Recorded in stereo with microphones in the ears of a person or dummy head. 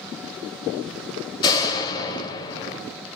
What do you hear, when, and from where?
1.4 s a door slam: 25° left (ahead or behind), 3.5 m